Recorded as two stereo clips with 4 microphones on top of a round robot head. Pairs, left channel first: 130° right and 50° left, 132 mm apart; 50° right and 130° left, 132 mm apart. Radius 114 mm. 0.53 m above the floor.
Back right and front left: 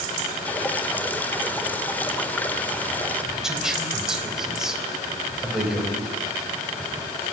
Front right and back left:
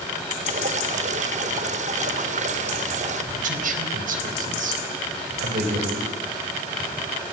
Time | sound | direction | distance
0.5 | dripping | 155° left | 1.9 m
3.3 | a man speaking | 135° left | 4 m